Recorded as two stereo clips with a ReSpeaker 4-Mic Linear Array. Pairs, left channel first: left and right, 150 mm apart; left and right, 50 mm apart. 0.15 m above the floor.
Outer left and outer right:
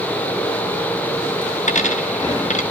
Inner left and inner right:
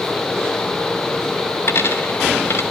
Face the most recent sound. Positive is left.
turn(degrees=55)  # may be behind; listen again after turning